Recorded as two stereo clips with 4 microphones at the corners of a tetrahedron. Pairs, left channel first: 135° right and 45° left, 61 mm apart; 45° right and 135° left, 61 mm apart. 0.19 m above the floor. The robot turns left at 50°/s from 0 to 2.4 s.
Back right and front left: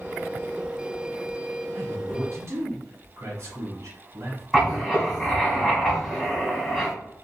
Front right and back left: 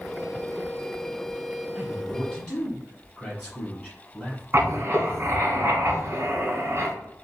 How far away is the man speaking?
About 1.7 m.